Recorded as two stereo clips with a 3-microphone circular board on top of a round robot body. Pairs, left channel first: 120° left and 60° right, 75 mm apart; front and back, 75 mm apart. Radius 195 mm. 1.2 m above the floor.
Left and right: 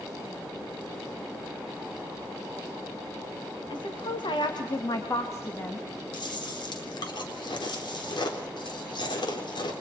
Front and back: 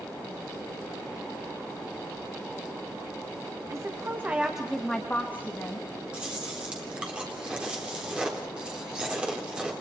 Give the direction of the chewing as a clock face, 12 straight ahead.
9 o'clock.